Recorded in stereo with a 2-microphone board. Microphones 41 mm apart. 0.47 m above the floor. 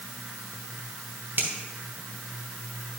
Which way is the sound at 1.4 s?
45° right (ahead or behind).